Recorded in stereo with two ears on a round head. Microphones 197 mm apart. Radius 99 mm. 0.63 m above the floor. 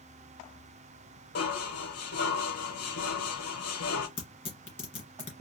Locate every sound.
1.4 s dishes clattering: 75° left (ahead or behind), 1.5 m
4.2 s tearing paper: 25° left (ahead or behind), 2 m